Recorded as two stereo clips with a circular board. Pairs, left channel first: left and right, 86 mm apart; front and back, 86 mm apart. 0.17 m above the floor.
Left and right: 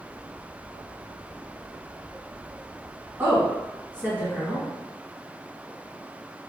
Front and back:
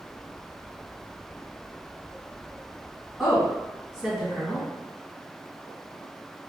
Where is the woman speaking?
105° right, 1.4 m.